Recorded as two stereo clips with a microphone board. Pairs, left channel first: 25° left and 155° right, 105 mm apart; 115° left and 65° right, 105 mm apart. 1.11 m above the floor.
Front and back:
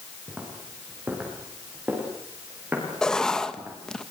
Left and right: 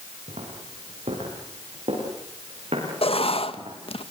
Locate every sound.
0.3 s footsteps: 80° right, 9.5 m; by 3.8 s 85° right, 11 m
3.0 s writing: 105° left, 1.5 m